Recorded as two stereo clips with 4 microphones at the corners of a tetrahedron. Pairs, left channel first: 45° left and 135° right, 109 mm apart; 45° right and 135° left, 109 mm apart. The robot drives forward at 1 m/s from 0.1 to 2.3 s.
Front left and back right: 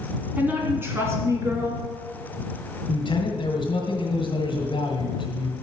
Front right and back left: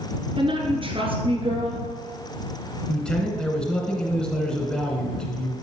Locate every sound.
0.4 s a woman speaking: 150° left, 1.7 m; by 1.8 s 165° left, 3 m
2.9 s a man speaking: 35° left, 1.8 m